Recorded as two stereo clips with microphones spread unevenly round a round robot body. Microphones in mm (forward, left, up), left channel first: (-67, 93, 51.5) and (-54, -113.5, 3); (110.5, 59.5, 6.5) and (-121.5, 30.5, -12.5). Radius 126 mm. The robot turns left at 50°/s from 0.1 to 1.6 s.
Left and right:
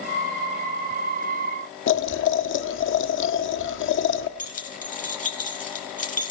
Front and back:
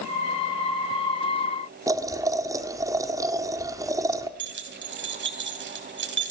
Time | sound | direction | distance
1.9 | boiling | 115° left | 1.4 m
4.4 | keys jangling | 150° left | 3.5 m